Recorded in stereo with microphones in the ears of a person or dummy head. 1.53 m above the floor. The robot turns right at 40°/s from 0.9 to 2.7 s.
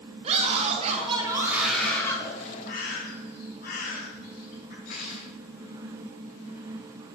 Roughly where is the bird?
Left.